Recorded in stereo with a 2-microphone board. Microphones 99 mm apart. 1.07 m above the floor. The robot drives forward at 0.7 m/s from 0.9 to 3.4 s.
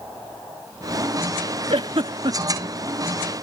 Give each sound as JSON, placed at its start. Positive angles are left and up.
{"t": 1.7, "sound": "a giggle", "side_deg": -65}